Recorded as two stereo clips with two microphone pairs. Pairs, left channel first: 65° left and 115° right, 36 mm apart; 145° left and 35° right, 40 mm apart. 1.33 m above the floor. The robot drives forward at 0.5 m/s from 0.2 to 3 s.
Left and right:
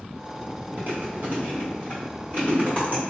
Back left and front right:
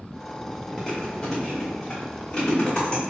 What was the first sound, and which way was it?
Chewing, 130° right.